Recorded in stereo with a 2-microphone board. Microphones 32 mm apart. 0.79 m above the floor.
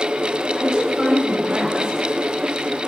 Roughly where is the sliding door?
No sliding door in this recording.